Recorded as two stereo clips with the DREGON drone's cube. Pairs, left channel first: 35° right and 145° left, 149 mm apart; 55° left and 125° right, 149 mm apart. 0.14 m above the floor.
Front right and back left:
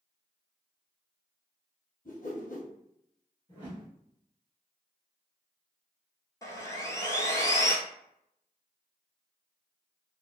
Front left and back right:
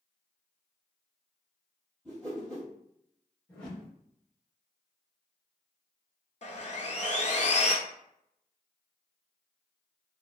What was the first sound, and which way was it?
A whoosh, 30° right.